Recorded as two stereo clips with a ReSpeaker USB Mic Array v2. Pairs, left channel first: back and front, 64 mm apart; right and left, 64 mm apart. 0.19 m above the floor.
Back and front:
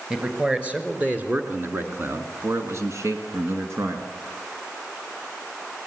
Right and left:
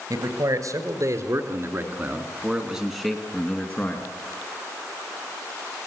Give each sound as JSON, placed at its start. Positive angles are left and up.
{"t": 0.1, "sound": "a man speaking", "azimuth_deg": 75, "distance_m": 4.0}